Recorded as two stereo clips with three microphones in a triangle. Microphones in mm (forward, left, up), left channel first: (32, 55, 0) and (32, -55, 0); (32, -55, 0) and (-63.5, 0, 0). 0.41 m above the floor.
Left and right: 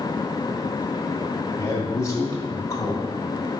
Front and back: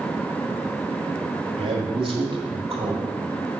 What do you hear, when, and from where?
1.6 s a man speaking: 140° left, 1.5 m